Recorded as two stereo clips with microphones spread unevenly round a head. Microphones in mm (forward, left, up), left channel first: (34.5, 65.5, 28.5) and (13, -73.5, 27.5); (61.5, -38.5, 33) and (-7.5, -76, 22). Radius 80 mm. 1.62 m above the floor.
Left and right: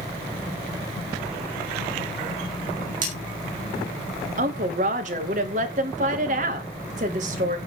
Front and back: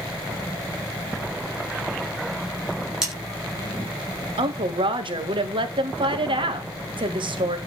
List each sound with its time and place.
3.0 s cutlery clinking: 70° right, 8.5 m
4.4 s a woman speaking: 140° right, 2.5 m